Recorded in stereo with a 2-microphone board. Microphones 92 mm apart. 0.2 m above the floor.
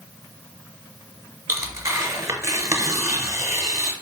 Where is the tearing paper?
35° right (ahead or behind), 0.8 m.